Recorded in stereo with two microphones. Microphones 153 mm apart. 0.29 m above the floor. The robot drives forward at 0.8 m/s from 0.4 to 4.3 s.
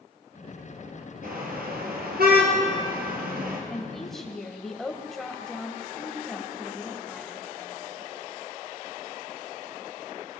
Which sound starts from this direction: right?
A car horn, at 1.2 s.